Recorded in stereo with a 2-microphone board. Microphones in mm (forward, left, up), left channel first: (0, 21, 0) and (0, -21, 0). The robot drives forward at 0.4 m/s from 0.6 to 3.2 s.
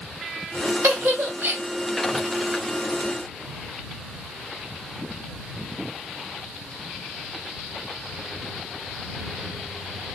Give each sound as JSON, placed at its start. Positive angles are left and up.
{"t": 0.8, "sound": "a giggle", "side_deg": -65, "distance_m": 2.0}